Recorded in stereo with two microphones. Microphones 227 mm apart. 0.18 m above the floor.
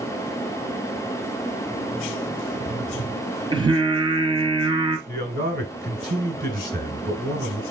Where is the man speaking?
35° right (ahead or behind), 1.5 m.